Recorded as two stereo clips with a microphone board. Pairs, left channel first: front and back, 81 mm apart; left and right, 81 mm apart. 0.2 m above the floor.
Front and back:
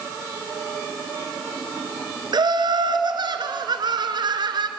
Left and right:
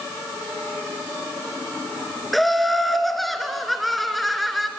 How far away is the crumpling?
I don't hear crumpling.